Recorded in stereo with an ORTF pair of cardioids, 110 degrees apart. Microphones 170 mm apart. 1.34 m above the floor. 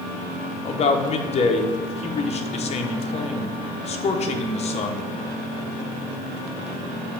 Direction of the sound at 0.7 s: 40° left.